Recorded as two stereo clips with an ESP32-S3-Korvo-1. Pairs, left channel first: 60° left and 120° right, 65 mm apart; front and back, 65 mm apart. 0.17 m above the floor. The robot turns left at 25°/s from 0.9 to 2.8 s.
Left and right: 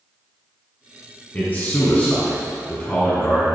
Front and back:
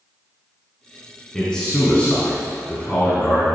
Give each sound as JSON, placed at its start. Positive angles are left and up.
{"t": 1.3, "sound": "a man speaking", "azimuth_deg": 65, "distance_m": 1.8}